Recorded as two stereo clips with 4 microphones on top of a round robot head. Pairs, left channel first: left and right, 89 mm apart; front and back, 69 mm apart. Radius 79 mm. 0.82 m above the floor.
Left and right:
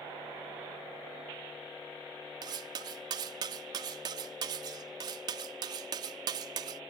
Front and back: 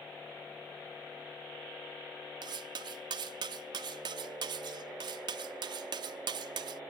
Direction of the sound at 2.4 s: 145° right.